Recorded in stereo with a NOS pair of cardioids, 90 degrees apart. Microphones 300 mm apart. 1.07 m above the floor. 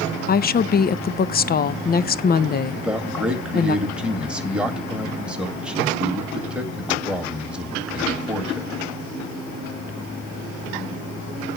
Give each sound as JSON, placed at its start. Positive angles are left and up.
{"t": 0.3, "sound": "a woman speaking", "azimuth_deg": 30, "distance_m": 0.6}
{"t": 2.8, "sound": "a man speaking", "azimuth_deg": -5, "distance_m": 2.0}